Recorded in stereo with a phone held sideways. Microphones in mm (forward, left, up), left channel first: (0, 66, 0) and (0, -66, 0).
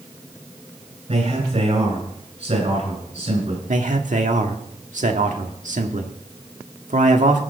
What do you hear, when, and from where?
1.1 s a man speaking: 55° right (ahead or behind), 8.5 m
3.7 s a man speaking: 70° right (ahead or behind), 1.7 m